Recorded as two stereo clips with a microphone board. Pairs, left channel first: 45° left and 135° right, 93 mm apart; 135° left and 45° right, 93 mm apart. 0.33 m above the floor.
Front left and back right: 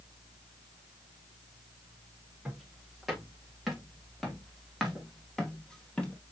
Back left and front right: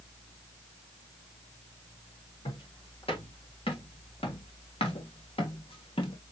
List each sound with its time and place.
2.5 s footsteps: 140° left, 6 m; by 6.2 s 125° left, 1.5 m